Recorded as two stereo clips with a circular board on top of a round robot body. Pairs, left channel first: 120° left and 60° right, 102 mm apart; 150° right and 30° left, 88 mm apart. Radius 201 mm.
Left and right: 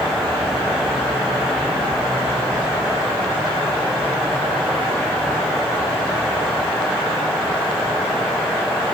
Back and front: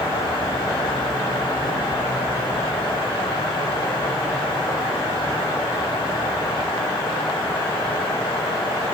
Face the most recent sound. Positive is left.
No sound to turn to.